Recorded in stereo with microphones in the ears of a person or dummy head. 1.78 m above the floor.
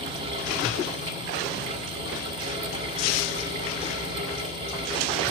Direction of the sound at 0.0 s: 35° right (ahead or behind).